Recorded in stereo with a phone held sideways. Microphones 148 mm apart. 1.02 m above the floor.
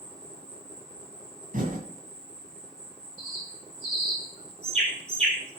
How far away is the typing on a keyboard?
About 1.9 m.